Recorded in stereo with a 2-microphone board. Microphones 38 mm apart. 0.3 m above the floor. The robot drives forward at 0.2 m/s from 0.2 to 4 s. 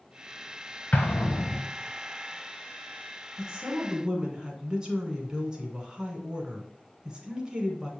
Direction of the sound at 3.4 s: 20° right (ahead or behind).